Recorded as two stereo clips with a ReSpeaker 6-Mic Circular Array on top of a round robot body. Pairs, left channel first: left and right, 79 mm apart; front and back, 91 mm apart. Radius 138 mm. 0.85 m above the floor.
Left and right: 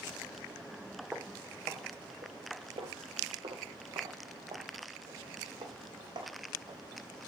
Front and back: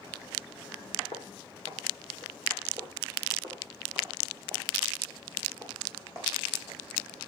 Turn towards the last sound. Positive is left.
turn(degrees=-120)